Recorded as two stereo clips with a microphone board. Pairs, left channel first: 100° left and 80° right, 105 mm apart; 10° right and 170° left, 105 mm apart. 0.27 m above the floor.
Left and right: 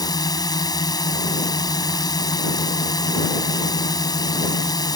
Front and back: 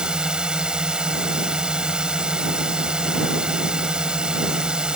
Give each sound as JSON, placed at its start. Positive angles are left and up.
{"t": 0.0, "sound": "a drone", "azimuth_deg": 90}